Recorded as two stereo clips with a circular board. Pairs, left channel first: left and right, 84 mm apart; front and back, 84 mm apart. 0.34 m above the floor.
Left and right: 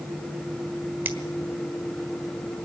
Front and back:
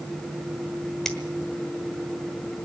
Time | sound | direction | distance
1.1 | a finger snap | 75° right | 1.3 m